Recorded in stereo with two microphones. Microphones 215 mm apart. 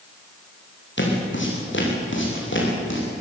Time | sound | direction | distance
1.0 | footsteps | 60° left (ahead or behind) | 6.5 m